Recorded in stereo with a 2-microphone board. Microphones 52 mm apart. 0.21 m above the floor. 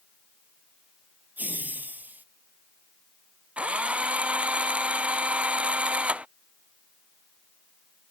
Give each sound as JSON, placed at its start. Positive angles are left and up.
{"t": 1.4, "sound": "laughter", "side_deg": -35}
{"t": 3.6, "sound": "a drill", "side_deg": -25}